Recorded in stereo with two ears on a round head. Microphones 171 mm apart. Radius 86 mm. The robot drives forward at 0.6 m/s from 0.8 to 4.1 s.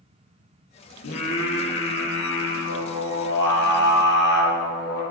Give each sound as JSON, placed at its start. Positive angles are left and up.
{"t": 1.0, "sound": "singing", "side_deg": 80, "distance_m": 3.0}